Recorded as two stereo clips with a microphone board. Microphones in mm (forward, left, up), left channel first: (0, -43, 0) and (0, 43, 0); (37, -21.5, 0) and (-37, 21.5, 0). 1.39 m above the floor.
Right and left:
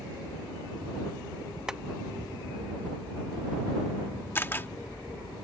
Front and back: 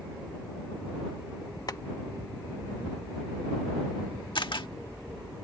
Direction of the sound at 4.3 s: 30° right.